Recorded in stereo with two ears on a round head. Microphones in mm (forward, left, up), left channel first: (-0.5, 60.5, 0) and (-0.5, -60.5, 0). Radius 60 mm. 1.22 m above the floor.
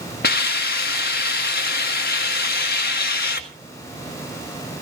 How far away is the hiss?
About 1.8 m.